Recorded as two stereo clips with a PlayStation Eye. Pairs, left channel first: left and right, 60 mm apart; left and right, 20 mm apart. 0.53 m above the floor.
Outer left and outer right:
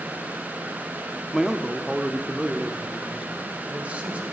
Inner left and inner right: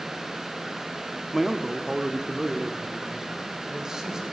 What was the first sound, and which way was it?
A man speaking, 5° right (ahead or behind).